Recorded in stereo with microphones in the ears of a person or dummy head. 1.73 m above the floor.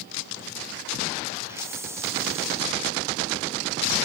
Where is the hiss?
15° right (ahead or behind), 0.8 m.